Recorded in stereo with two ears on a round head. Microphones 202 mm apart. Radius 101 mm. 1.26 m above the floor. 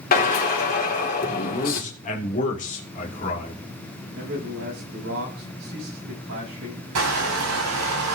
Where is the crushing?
80° right, 7 m.